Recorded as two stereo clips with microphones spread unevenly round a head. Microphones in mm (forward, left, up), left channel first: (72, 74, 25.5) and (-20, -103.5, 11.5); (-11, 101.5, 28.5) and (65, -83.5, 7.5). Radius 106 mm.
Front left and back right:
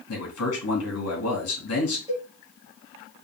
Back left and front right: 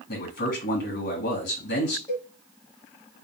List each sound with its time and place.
0.1 s a man speaking: 75° left, 2 m
2.1 s a cowbell: 170° left, 1.0 m